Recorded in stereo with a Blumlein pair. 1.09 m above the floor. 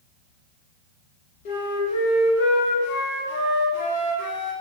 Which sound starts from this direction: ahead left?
A flute, at 1.4 s.